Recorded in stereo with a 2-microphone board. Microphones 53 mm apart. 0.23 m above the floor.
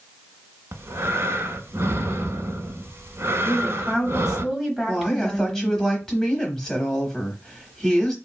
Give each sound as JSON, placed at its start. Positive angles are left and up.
{"t": 0.7, "sound": "breathing", "side_deg": -65, "distance_m": 0.5}
{"t": 3.5, "sound": "a woman speaking", "side_deg": -5, "distance_m": 1.2}
{"t": 4.9, "sound": "a woman speaking", "side_deg": 10, "distance_m": 1.0}